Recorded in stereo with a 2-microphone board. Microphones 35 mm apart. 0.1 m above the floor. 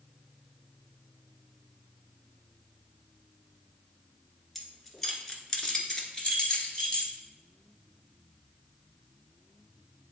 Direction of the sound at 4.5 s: 5° left (ahead or behind).